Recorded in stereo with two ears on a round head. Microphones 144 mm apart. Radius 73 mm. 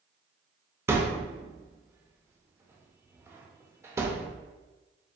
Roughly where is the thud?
Centre.